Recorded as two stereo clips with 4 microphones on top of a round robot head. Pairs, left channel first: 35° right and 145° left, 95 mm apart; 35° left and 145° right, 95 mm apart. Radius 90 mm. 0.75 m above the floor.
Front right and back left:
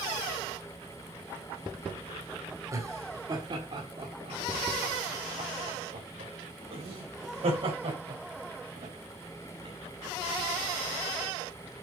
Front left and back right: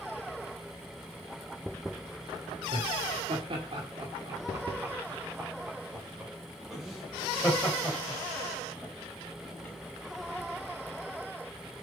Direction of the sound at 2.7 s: 160° right.